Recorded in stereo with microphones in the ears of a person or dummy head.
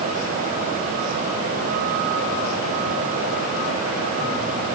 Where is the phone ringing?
I don't hear a phone ringing.